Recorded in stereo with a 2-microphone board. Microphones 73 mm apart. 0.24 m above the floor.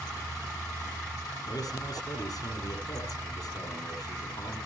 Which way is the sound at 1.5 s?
65° left (ahead or behind).